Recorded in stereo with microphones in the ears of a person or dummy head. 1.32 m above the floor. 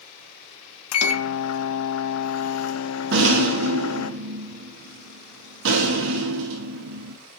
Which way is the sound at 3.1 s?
60° right (ahead or behind).